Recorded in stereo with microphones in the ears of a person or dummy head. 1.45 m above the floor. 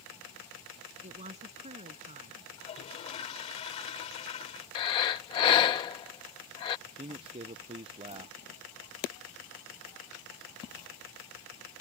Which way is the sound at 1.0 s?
30° right (ahead or behind).